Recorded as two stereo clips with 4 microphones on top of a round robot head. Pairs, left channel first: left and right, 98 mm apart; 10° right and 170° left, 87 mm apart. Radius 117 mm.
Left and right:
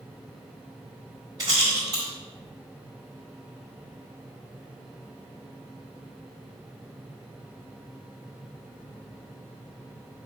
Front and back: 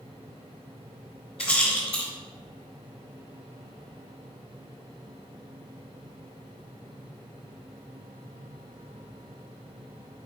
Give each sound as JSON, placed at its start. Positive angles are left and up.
{"t": 1.4, "sound": "a rattle", "azimuth_deg": -30, "distance_m": 1.5}